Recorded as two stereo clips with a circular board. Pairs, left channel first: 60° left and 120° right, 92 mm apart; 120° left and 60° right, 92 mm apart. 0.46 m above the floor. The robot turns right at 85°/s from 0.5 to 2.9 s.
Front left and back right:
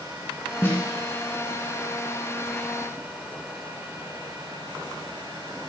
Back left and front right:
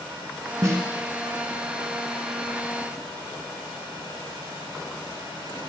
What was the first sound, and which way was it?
A snare drum, 5° right.